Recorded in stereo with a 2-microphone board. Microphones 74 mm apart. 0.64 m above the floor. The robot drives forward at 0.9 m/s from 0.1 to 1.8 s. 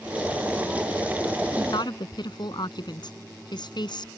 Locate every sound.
1.6 s a woman speaking: 75° left (ahead or behind)